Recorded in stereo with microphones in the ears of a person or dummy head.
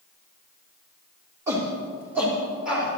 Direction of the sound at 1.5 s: 20° right (ahead or behind).